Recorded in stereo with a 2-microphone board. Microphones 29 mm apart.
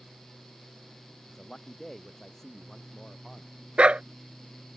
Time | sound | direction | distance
1.3 | a man speaking | 10° left (ahead or behind) | ?
3.8 | a dog barking | 40° right (ahead or behind) | ?